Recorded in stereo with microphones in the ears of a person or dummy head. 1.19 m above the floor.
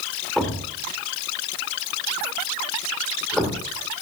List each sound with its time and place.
0.4 s a thud: centre (ahead or behind), 1.4 m